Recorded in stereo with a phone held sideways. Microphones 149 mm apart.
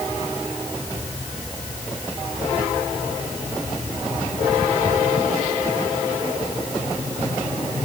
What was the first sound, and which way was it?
Only background noise.